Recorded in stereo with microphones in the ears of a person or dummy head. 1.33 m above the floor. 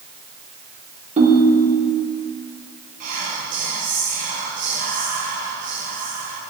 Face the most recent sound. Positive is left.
turn(degrees=-45)  # may be behind; listen again after turning